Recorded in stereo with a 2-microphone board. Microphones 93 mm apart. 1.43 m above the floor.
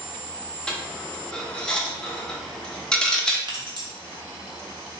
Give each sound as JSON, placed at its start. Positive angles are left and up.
{"t": 0.7, "sound": "a dropped coin", "side_deg": 10, "distance_m": 0.7}
{"t": 3.5, "sound": "keys jangling", "side_deg": -50, "distance_m": 0.9}